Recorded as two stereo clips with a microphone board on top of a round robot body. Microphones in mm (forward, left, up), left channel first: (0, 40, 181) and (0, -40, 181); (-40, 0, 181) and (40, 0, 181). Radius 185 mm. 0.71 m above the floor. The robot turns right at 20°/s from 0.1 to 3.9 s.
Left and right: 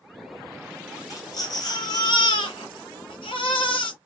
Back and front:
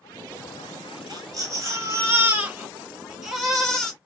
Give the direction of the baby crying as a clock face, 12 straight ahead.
11 o'clock.